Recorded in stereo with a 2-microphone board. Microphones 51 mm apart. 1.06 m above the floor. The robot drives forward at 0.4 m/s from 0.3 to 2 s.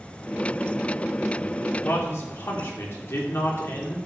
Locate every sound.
1.8 s a man speaking: 55° left (ahead or behind), 2.5 m; by 4.0 s 60° left (ahead or behind), 2.5 m